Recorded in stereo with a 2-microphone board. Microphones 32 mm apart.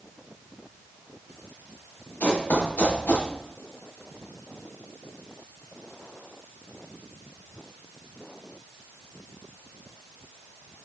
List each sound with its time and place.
2.2 s running footsteps: 80° left, 3.5 m